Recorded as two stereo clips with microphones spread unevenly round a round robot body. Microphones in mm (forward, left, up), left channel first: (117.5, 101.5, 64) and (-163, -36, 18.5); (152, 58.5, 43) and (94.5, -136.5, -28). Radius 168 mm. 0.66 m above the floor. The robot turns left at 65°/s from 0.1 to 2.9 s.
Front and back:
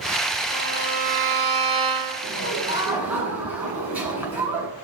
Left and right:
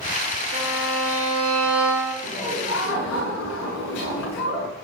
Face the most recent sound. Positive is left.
turn(degrees=120)